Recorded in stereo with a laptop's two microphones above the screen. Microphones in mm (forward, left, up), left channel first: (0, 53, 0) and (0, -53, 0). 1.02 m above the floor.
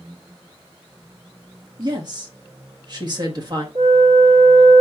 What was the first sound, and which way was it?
A woman speaking, 40° right (ahead or behind).